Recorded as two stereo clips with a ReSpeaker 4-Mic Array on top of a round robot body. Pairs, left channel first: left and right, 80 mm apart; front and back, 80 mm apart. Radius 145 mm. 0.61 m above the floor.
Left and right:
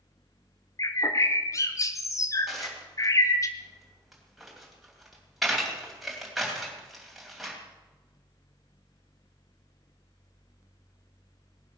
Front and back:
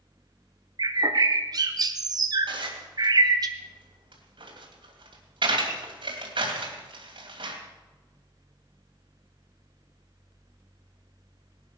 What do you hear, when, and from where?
0.8 s a bird: 140° left, 1.2 m
2.5 s dishes clattering: 175° right, 2.5 m